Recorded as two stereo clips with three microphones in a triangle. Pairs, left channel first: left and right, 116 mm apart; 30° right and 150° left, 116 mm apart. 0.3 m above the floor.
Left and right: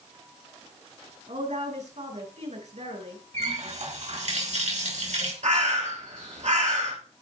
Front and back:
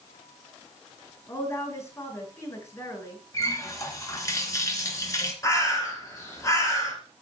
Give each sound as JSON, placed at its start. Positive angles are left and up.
{"t": 1.3, "sound": "a woman speaking", "azimuth_deg": -95, "distance_m": 5.5}
{"t": 3.3, "sound": "a running tap", "azimuth_deg": -90, "distance_m": 3.0}
{"t": 5.4, "sound": "a bird", "azimuth_deg": -90, "distance_m": 4.0}